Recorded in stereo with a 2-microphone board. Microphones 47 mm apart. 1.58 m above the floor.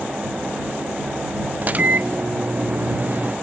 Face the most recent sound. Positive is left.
turn(degrees=-35)  # may be behind; listen again after turning